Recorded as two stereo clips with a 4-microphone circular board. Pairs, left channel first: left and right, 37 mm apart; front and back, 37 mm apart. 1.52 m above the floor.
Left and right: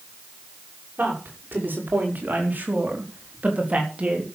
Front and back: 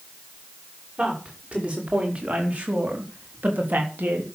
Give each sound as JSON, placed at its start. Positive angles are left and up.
{"t": 1.0, "sound": "a woman speaking", "azimuth_deg": -120, "distance_m": 5.5}